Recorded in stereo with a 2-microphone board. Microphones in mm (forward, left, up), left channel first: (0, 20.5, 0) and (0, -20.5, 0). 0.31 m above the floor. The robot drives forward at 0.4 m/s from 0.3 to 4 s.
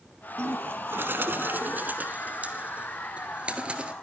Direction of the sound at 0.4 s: 75° right (ahead or behind).